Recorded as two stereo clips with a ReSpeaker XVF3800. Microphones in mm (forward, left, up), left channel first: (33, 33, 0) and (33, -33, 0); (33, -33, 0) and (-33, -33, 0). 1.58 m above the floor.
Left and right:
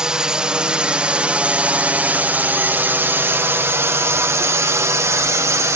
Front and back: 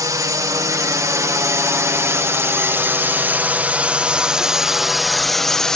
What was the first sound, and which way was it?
A drone, 165° right.